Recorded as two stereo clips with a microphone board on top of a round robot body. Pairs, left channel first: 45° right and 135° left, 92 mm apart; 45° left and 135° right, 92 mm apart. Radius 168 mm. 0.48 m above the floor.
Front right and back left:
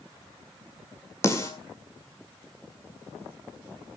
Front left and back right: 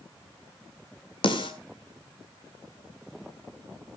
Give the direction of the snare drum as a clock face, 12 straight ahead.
12 o'clock.